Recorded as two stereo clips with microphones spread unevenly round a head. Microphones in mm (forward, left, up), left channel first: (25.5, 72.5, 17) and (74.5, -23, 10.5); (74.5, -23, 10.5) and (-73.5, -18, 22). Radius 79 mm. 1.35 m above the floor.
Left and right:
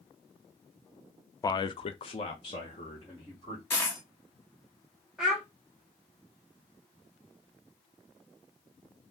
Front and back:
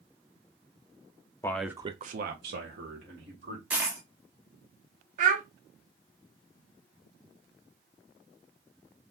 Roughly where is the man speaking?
Ahead left.